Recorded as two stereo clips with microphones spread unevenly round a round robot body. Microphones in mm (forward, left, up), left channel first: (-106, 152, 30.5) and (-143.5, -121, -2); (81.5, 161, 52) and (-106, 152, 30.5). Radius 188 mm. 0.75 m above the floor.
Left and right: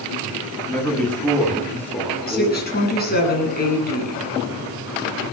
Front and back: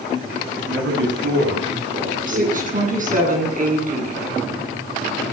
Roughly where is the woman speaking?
Behind left.